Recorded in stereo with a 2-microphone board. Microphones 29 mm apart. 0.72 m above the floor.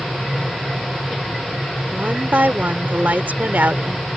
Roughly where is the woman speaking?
Right.